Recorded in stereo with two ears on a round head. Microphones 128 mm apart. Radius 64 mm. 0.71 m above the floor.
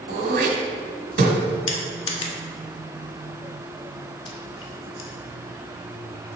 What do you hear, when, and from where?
0.1 s throat clearing: 70° right (ahead or behind), 1.7 m
1.7 s crushing: 40° left (ahead or behind), 1.4 m